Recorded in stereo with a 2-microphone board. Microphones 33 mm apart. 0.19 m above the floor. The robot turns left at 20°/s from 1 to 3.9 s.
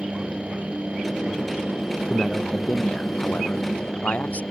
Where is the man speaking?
165° left; by 4.4 s 125° left.